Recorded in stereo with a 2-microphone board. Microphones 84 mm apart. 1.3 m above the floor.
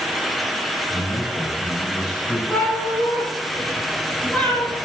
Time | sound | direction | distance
0.9 | a man speaking | 70° left (ahead or behind) | 6 m
2.5 | a cat meowing | 15° left (ahead or behind) | 8.5 m